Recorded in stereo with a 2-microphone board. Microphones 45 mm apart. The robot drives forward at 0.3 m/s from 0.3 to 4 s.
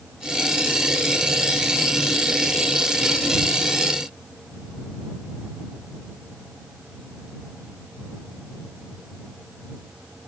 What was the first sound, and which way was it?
Only background noise.